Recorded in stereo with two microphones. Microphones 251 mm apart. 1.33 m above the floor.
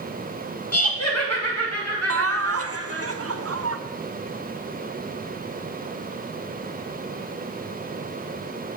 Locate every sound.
0.7 s laughter: 75° left (ahead or behind), 1.7 m; by 3.1 s 85° left, 3.5 m
2.1 s laughter: 65° right (ahead or behind), 0.7 m